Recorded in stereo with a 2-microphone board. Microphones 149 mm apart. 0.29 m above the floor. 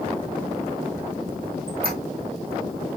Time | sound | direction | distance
1.7 | a squeak | 85° right | 3 m